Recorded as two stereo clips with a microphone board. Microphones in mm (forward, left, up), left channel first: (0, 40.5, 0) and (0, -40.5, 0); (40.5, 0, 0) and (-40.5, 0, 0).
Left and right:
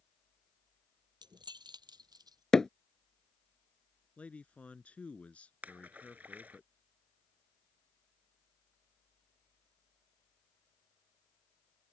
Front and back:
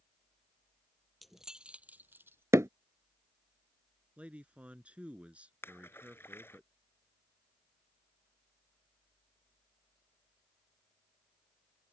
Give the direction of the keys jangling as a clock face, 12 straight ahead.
3 o'clock.